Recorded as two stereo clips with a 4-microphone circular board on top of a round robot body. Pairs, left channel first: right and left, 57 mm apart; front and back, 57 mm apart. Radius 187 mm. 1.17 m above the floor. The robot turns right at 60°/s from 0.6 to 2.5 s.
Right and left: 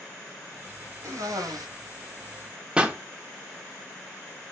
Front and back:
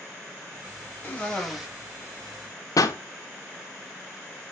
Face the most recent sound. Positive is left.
turn(degrees=20)